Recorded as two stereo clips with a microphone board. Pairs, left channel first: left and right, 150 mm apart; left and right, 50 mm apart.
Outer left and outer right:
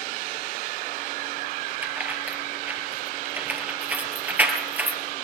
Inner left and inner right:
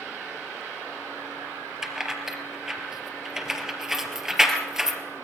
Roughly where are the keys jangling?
Centre.